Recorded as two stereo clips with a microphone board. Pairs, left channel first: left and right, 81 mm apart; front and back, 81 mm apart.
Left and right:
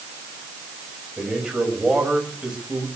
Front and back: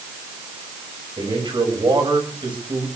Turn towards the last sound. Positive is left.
turn(degrees=-170)